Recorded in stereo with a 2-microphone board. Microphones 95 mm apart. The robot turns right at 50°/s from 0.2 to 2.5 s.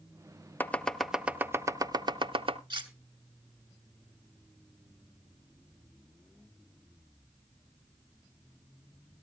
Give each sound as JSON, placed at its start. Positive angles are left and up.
{"t": 0.6, "sound": "chopping", "side_deg": 20, "distance_m": 0.6}
{"t": 2.7, "sound": "cutlery clinking", "side_deg": -55, "distance_m": 1.3}